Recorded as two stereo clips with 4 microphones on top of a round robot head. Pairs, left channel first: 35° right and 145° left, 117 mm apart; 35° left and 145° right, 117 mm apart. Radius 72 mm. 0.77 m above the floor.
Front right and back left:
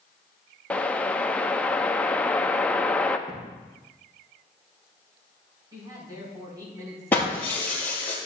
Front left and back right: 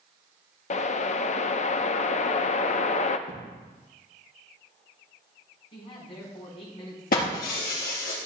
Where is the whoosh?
40° left, 0.7 m.